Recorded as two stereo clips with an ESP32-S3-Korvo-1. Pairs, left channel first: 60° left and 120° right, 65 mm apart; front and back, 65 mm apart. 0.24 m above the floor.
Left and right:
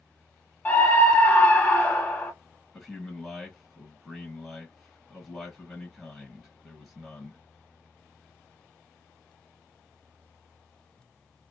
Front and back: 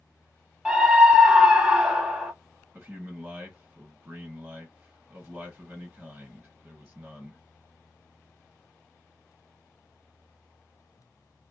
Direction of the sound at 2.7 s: 145° left.